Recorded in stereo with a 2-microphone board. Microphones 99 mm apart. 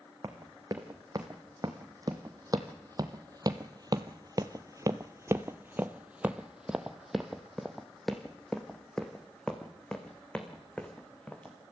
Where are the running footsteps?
35° right (ahead or behind), 2.5 m; by 11.6 s 10° left (ahead or behind), 3.5 m.